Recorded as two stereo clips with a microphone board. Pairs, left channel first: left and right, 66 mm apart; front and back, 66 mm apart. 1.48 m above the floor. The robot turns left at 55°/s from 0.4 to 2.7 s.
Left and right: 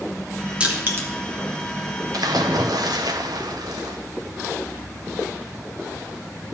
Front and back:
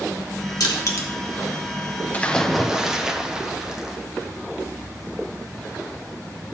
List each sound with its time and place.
0.6 s crushing: 20° right, 2 m; by 1.1 s 45° right, 2 m
2.1 s a splash: 70° right, 0.8 m; by 4.0 s 100° right, 0.8 m